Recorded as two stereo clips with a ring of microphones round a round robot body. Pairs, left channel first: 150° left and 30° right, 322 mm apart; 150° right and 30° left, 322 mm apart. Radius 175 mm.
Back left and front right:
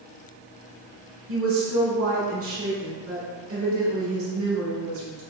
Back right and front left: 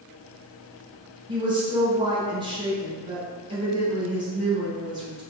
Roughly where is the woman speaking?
Ahead right.